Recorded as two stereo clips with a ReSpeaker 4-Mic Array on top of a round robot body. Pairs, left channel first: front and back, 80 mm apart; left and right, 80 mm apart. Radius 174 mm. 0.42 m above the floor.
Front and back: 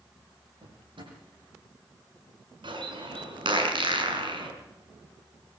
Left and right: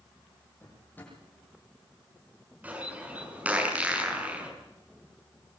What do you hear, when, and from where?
0.6 s a drawer: 160° left, 9.5 m
2.6 s a bird: 160° right, 7 m